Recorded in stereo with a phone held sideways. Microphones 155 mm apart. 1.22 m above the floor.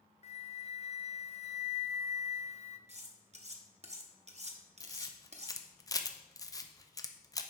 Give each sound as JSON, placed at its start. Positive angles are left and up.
{"t": 0.2, "sound": "a flute", "side_deg": 45, "distance_m": 0.5}
{"t": 2.9, "sound": "cutlery clinking", "side_deg": -45, "distance_m": 0.9}
{"t": 4.8, "sound": "a camera shutter", "side_deg": 25, "distance_m": 0.6}